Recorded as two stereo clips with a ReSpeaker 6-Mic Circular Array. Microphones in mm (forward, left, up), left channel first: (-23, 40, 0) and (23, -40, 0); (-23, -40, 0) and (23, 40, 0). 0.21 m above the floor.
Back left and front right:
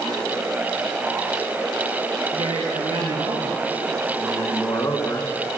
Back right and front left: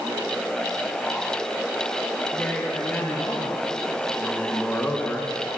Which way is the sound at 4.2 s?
170° left.